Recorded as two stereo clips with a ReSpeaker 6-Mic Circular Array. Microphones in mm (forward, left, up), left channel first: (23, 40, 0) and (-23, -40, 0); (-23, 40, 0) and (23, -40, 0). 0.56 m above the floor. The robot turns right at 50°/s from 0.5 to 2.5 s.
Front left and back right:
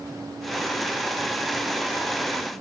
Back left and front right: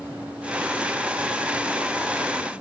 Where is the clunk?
I don't hear a clunk.